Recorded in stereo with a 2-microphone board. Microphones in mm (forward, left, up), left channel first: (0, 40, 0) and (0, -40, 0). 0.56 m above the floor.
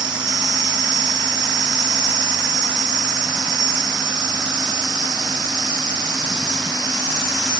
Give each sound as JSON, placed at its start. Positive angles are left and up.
{"t": 0.0, "sound": "an insect", "side_deg": -70, "distance_m": 0.9}